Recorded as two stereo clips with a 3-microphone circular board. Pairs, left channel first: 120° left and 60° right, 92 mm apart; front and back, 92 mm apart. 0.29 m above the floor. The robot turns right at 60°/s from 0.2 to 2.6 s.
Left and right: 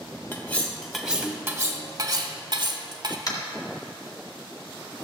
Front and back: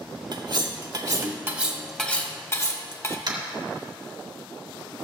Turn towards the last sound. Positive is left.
turn(degrees=160)